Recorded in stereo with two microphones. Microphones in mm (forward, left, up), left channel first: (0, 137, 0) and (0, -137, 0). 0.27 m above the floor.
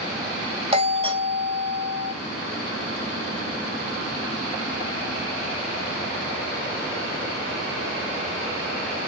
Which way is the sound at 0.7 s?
20° right (ahead or behind).